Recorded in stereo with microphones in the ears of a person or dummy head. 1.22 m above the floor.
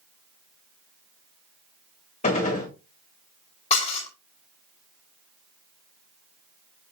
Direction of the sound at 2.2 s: 30° left (ahead or behind).